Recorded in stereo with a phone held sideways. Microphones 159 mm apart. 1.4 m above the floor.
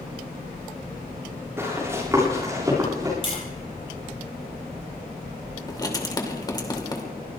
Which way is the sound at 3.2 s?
35° left (ahead or behind).